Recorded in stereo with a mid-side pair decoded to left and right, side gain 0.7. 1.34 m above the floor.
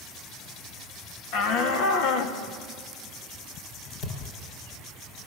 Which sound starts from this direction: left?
A shout, at 1.3 s.